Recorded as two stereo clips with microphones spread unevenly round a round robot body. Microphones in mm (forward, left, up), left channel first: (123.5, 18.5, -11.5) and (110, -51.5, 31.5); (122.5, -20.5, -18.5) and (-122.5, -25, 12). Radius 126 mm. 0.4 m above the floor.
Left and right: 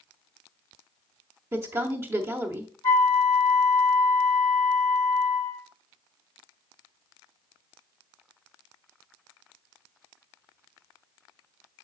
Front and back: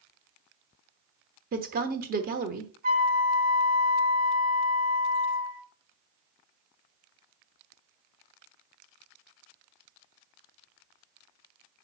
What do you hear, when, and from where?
1.5 s a woman speaking: 160° left, 1.0 m
2.8 s a flute: 120° left, 1.3 m